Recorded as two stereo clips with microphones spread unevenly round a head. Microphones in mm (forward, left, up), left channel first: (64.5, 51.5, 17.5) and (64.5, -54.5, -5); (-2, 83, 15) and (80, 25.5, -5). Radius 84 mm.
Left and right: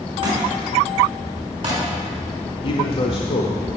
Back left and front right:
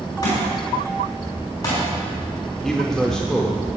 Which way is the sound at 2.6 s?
60° left.